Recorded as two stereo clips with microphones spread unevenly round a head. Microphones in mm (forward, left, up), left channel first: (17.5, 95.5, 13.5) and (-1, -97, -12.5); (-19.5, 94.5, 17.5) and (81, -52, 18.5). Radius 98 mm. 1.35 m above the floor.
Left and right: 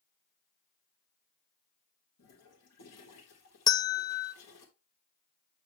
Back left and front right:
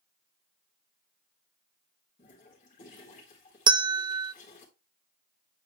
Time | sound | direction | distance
2.2 | a toilet flushing | 75° left | 3.5 m
3.7 | a bell | 10° left | 0.6 m